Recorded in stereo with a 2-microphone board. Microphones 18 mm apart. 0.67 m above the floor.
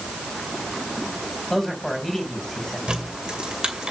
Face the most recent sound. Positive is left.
turn(degrees=-60)  # may be behind; listen again after turning